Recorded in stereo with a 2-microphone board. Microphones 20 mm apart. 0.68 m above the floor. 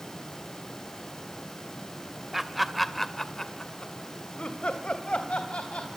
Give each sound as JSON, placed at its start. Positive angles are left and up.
{"t": 2.3, "sound": "laughter", "side_deg": -5, "distance_m": 2.5}